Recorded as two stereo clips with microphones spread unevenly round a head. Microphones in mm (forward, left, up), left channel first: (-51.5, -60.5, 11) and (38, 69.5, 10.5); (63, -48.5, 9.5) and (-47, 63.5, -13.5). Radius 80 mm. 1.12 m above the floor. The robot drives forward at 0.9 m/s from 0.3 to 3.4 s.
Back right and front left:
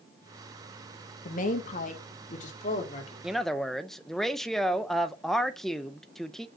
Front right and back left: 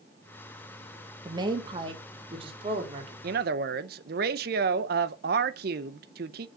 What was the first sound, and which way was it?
A woman speaking, 160° right.